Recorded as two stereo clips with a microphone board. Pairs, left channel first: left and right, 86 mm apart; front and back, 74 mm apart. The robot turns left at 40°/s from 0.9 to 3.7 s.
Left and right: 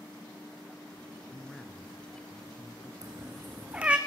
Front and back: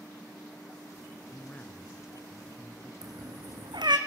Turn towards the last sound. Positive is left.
turn(degrees=-165)